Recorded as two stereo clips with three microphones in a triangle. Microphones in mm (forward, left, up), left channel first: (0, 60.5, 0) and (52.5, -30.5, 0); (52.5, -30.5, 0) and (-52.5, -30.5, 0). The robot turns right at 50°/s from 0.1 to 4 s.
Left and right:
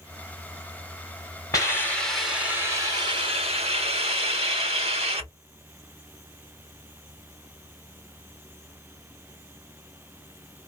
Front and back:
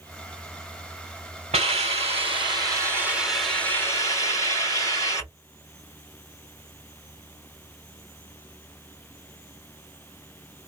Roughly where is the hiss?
Behind.